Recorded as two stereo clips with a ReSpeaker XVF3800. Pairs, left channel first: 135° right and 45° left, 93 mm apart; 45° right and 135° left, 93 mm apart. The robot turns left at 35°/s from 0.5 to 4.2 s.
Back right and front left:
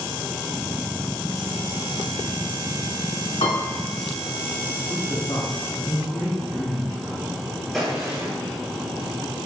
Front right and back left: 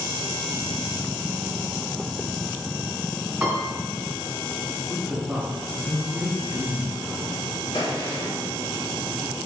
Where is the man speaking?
150° right, 2 m.